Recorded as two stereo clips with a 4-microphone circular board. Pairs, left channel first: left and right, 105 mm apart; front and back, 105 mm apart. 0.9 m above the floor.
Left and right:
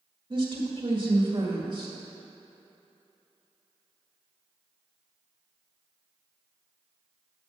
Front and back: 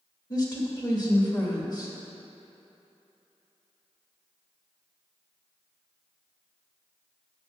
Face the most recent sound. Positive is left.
turn(degrees=-50)